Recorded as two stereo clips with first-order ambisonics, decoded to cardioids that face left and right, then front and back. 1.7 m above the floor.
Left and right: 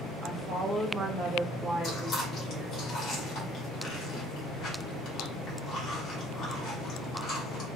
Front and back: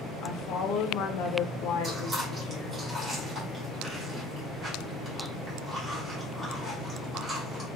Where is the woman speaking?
20° right, 0.7 m.